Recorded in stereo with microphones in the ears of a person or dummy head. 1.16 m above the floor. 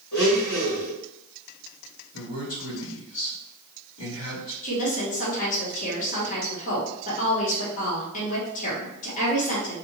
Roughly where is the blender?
Left.